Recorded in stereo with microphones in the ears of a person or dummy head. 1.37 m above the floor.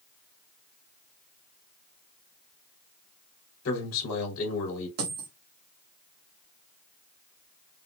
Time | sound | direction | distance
3.6 | a man speaking | 80° left | 2.5 m
5.0 | a dropped coin | 55° right (ahead or behind) | 1.4 m